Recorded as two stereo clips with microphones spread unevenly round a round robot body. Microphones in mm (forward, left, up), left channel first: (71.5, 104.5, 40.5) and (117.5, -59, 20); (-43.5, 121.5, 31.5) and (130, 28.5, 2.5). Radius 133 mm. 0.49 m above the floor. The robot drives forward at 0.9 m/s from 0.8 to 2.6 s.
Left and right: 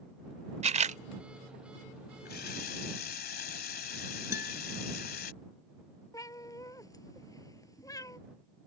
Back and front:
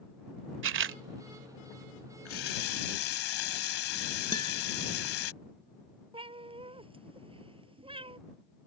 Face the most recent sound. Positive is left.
turn(degrees=35)